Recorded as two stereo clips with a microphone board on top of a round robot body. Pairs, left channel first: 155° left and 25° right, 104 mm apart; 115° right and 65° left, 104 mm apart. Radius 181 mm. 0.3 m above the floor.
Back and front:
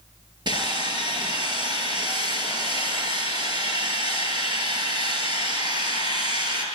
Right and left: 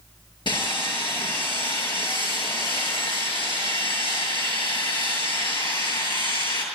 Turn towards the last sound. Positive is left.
turn(degrees=-70)